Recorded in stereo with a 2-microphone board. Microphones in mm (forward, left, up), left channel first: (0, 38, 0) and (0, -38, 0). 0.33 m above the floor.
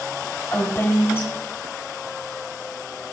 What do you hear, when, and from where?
0.5 s a woman speaking: 30° left (ahead or behind), 1.5 m